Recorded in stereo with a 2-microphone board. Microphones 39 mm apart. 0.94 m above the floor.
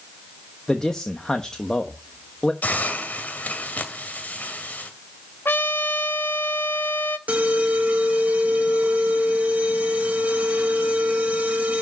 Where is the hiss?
45° left (ahead or behind), 2 m.